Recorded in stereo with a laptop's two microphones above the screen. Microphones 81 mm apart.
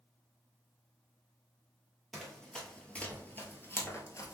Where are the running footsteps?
5° left (ahead or behind), 1.6 m; by 4.3 s 40° left (ahead or behind), 1.3 m.